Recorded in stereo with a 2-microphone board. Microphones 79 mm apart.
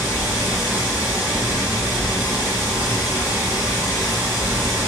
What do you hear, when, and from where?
0.0 s running water: 25° right (ahead or behind), 1.4 m